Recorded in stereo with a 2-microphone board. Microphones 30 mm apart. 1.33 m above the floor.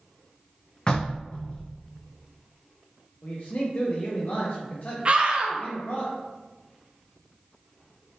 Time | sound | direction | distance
0.9 | knocking | 30° left (ahead or behind) | 0.7 m
3.2 | a man speaking | 55° left (ahead or behind) | 0.5 m
5.0 | a scream | 35° right (ahead or behind) | 0.5 m